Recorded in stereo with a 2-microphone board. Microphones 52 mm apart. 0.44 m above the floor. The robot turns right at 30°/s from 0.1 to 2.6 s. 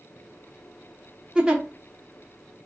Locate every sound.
1.4 s a giggle: 15° right (ahead or behind), 0.8 m; by 1.6 s 10° right (ahead or behind), 0.8 m